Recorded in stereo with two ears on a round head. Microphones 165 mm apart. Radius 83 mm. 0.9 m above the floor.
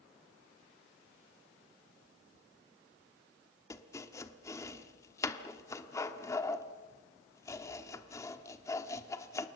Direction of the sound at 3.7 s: 15° left (ahead or behind).